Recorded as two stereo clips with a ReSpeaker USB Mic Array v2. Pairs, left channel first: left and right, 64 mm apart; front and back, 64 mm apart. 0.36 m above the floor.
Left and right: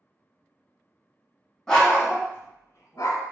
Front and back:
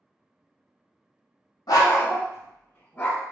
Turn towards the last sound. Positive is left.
turn(degrees=70)